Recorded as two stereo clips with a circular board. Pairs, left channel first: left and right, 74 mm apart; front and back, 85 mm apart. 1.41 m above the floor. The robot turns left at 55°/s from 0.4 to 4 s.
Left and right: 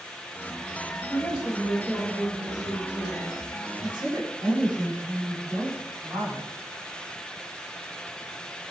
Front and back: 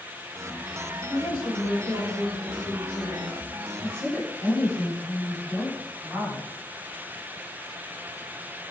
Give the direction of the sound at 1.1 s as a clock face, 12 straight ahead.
10 o'clock.